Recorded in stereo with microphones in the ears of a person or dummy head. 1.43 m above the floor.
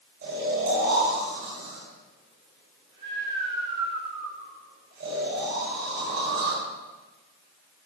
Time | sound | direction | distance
0.2 | snoring | 50° right (ahead or behind) | 5 m